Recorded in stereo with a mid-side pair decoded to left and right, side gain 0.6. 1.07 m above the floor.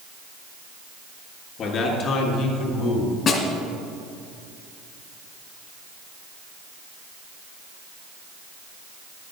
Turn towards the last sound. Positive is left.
turn(degrees=45)